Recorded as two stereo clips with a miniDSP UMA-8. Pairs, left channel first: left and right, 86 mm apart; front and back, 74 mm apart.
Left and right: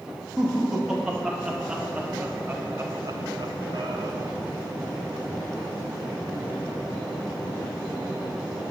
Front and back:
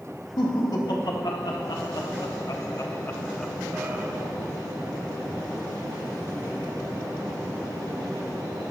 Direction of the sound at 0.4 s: 5° right.